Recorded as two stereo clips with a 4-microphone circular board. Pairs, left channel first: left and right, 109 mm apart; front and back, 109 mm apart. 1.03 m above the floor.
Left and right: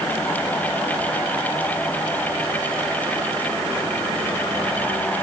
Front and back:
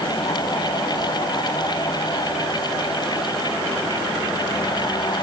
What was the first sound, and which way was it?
Only background noise.